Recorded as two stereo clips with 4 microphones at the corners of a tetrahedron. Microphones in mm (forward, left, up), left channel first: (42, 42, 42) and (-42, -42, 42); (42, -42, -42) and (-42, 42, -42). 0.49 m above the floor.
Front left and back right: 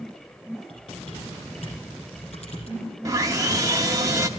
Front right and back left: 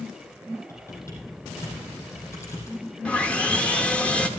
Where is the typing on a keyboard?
20° left, 6 m.